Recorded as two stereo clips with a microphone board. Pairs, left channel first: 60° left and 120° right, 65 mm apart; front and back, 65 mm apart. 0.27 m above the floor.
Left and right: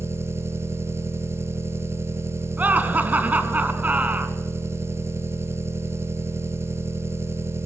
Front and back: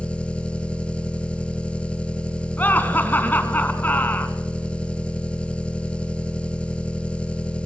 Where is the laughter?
60° right, 2.5 m.